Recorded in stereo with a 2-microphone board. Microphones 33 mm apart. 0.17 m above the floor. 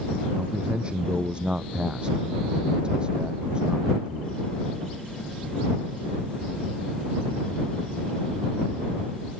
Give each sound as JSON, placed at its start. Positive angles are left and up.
{"t": 0.4, "sound": "a man speaking", "side_deg": -30}